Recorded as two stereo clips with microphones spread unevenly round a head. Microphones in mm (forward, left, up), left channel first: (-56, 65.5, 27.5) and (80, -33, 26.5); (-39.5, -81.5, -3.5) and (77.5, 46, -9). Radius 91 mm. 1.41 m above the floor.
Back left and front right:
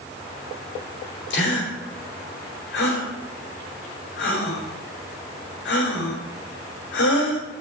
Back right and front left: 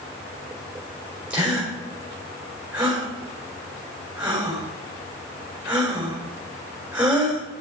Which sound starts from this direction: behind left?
A gasp, at 1.3 s.